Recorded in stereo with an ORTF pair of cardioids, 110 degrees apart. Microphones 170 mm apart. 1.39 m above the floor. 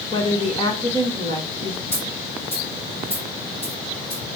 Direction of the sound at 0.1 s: 30° left.